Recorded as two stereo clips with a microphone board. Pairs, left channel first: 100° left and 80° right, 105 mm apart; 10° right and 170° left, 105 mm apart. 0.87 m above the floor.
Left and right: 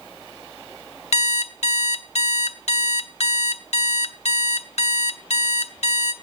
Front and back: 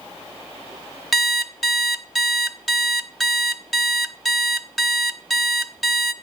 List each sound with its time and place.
1.1 s an alarm clock: 80° left, 0.7 m